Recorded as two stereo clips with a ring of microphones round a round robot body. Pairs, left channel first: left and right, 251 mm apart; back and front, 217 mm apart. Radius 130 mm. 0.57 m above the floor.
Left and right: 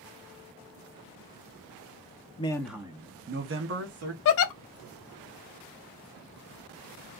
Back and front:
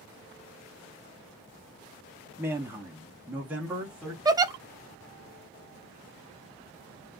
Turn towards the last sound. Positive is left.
turn(degrees=70)